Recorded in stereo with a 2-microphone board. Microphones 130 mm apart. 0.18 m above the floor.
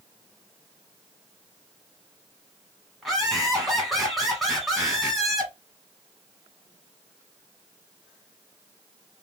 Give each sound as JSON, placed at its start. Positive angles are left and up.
{"t": 3.0, "sound": "laughter", "side_deg": 0, "distance_m": 1.1}